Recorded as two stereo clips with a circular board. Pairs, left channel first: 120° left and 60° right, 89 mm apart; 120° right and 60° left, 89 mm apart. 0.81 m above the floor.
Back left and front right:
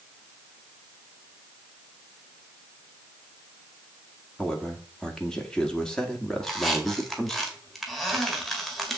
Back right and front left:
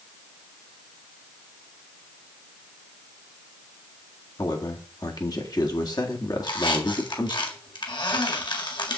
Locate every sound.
4.4 s a man speaking: 160° right, 1.8 m
6.4 s a squeak: 150° right, 1.8 m